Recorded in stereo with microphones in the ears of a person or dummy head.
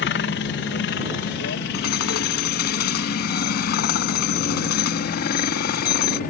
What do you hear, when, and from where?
0.0 s a helicopter: 55° left (ahead or behind); by 6.3 s 50° left (ahead or behind)
1.7 s hammering: 60° left (ahead or behind)